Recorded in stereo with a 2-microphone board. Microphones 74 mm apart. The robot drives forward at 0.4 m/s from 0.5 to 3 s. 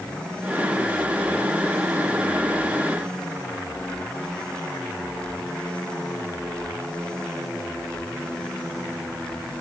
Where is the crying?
No crying in this recording.